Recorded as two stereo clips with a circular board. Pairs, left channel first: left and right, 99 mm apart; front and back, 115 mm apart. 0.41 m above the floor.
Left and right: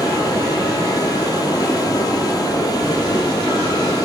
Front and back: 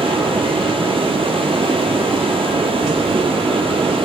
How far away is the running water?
About 4 m.